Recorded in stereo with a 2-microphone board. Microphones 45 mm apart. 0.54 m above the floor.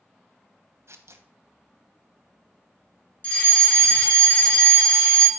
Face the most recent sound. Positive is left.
turn(degrees=30)  # may be behind; listen again after turning